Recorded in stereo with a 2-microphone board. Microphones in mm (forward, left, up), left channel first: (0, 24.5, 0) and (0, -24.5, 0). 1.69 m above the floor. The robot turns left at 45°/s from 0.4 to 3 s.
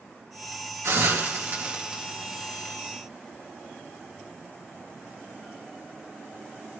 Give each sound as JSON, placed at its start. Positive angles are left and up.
{"t": 0.8, "sound": "a hiss", "side_deg": -75, "distance_m": 2.0}